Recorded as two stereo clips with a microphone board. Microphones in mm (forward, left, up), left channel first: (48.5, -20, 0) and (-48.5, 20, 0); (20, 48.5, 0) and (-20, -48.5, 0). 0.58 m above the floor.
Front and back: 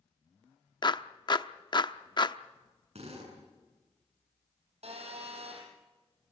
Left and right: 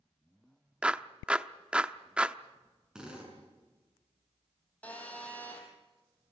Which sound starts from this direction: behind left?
A phone buzzing, at 4.8 s.